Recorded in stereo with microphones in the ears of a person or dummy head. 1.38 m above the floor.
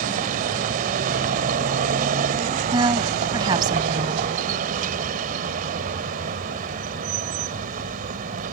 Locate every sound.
0.0 s a vehicle: 50° right (ahead or behind)
2.7 s a woman speaking: 25° right (ahead or behind)